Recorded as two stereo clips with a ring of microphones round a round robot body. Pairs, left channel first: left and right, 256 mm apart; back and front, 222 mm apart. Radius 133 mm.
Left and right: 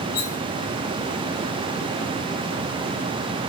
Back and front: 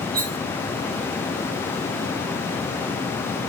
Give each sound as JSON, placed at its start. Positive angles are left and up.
{"t": 0.1, "sound": "cutlery clinking", "azimuth_deg": 50, "distance_m": 1.9}